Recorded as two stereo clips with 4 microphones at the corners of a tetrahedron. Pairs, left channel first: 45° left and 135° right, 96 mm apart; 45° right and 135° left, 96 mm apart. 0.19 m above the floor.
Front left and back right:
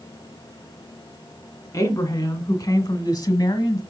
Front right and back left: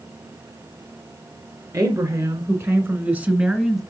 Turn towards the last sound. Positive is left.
turn(degrees=50)